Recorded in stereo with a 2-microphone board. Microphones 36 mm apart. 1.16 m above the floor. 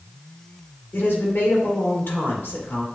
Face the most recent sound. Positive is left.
turn(degrees=60)  # may be behind; listen again after turning